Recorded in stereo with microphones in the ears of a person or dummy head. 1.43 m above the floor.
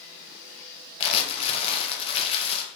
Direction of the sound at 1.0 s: 35° left (ahead or behind).